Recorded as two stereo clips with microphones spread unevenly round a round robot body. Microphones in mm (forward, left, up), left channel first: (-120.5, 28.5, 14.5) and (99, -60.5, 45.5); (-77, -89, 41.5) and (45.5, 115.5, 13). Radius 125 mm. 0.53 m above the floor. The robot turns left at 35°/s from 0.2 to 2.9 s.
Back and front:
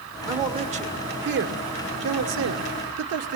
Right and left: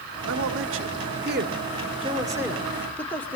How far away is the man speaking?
About 1.7 m.